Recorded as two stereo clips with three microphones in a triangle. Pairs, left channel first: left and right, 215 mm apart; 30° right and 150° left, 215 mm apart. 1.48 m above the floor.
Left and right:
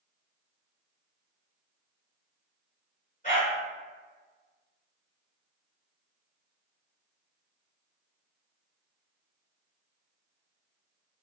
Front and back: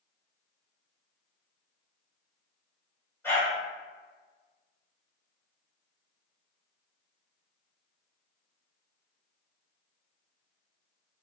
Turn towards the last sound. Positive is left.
turn(degrees=45)